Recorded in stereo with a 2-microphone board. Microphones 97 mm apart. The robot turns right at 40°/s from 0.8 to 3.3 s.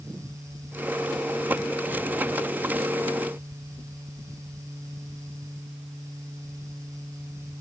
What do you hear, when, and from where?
Only background noise.